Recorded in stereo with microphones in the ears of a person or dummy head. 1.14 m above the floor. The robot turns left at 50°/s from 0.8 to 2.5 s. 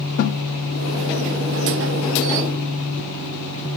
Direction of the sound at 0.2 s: 50° left (ahead or behind).